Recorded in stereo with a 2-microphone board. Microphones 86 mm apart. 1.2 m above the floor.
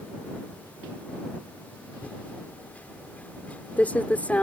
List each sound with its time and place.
2.0 s typing on a keyboard: 15° left (ahead or behind)